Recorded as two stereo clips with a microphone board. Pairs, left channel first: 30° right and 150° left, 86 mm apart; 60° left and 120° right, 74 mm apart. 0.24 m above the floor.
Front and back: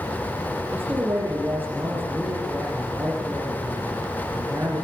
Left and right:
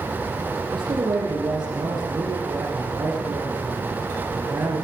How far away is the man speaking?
About 9.5 m.